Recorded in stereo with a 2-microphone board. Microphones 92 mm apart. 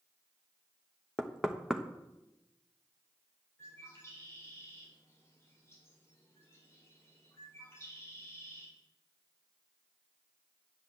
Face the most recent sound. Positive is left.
turn(degrees=30)  # may be behind; listen again after turning